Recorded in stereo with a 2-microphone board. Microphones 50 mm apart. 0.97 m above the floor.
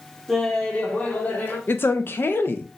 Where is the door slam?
No door slam in this recording.